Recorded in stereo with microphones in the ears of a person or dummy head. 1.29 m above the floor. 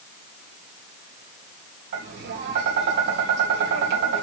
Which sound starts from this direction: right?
Tapping, at 1.9 s.